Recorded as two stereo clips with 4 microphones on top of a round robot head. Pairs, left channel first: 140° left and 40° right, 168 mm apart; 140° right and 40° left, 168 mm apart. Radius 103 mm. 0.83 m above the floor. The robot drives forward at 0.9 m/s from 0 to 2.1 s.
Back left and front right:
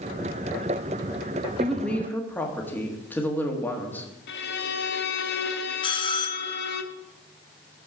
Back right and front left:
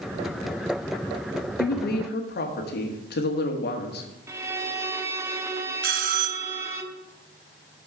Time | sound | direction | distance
1.6 | a woman speaking | 130° right | 1.5 m
4.3 | a violin | 115° left | 0.8 m
5.8 | a bell | 75° left | 0.6 m